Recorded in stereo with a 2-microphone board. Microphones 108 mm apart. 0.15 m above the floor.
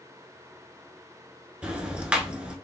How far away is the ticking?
About 0.7 m.